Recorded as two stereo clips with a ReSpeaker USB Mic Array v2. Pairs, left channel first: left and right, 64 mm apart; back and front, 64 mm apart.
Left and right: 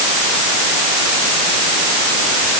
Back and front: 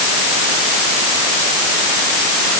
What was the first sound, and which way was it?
Only background noise.